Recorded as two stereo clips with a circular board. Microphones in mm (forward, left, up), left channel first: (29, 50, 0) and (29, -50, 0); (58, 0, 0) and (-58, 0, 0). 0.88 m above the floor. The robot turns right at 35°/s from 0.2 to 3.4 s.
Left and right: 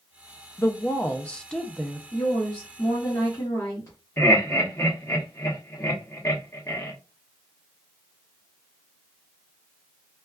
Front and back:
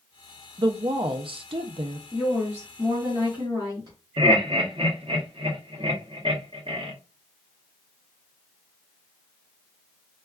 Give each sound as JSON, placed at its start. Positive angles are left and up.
{"t": 0.6, "sound": "a woman speaking", "azimuth_deg": 140, "distance_m": 0.5}
{"t": 2.1, "sound": "a woman speaking", "azimuth_deg": 95, "distance_m": 1.4}
{"t": 4.2, "sound": "laughter", "azimuth_deg": 145, "distance_m": 1.1}